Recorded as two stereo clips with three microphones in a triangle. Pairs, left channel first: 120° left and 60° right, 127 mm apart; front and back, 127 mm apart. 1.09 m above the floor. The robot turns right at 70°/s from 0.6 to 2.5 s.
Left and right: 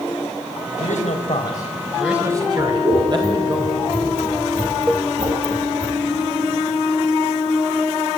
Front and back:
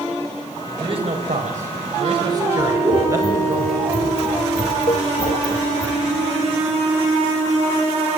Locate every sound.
0.8 s a man speaking: 125° left, 4.5 m; by 3.6 s 115° right, 4.5 m
2.6 s scissors: 100° right, 4 m
4.9 s a cowbell: 20° left, 0.5 m